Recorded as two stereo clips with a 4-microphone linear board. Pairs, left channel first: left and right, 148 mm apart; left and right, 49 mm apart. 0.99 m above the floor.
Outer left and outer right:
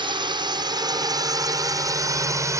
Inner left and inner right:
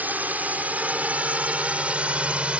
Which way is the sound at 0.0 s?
30° right (ahead or behind).